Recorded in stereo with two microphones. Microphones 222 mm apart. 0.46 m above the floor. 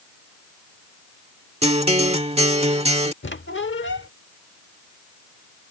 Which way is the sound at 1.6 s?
30° right (ahead or behind).